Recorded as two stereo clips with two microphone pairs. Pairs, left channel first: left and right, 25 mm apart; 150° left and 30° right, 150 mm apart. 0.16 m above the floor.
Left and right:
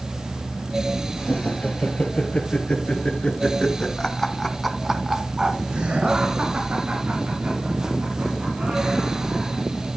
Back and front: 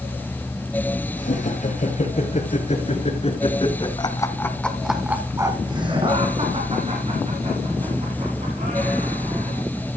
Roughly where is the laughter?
Behind left.